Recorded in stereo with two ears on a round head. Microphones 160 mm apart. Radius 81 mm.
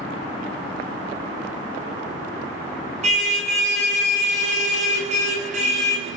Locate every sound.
3.0 s a car horn: 45° right (ahead or behind), 9.5 m